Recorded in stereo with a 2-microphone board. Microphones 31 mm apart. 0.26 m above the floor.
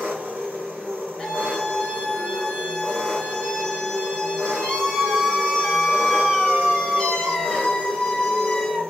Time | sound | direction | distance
0.0 | an engine running | 55° right (ahead or behind) | 1.6 m
1.2 | a scream | 25° left (ahead or behind) | 1.5 m